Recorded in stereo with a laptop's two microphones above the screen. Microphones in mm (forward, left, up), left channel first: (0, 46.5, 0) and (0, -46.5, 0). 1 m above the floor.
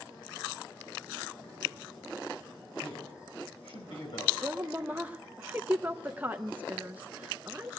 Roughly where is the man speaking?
Left.